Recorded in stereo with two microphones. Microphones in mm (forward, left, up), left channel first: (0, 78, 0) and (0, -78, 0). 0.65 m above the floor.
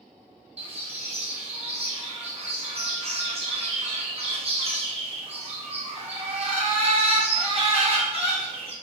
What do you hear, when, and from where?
0.6 s a bird: 45° right (ahead or behind), 0.6 m